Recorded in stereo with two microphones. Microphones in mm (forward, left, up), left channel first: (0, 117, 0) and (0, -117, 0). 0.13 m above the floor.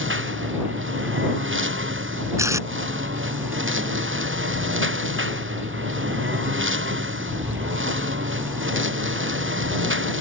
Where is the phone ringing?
I don't hear a phone ringing.